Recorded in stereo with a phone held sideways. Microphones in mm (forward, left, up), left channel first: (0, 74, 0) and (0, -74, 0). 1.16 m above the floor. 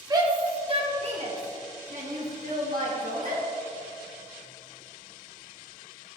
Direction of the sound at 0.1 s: 25° right (ahead or behind).